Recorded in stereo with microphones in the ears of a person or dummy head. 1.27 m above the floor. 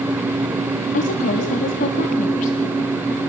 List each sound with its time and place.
0.9 s a woman speaking: 40° left (ahead or behind), 2.0 m